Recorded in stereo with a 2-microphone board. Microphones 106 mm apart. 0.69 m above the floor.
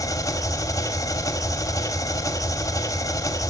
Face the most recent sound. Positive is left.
turn(degrees=30)  # may be behind; listen again after turning